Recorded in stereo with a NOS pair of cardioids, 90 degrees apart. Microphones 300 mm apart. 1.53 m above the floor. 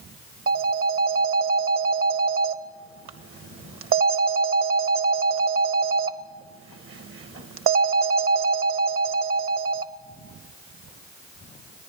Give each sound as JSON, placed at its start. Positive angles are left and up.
{"t": 0.5, "sound": "a phone ringing", "azimuth_deg": -50, "distance_m": 1.2}